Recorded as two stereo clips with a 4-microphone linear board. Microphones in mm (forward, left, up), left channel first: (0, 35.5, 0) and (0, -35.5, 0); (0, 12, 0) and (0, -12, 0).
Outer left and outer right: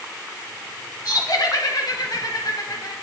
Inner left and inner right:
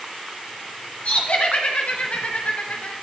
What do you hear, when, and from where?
1.1 s laughter: 65° left (ahead or behind), 4 m